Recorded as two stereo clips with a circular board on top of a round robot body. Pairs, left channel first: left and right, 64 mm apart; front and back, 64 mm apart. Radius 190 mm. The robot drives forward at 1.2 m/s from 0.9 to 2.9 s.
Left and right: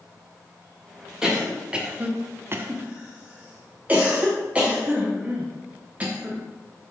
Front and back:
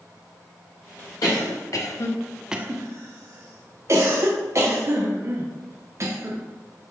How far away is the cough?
About 1.6 m.